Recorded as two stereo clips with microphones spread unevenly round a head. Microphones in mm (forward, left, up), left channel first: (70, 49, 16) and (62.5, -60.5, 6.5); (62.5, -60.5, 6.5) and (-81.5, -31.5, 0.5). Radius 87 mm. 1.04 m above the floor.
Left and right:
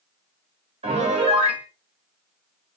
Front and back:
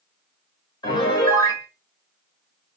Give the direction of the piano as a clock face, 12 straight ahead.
2 o'clock.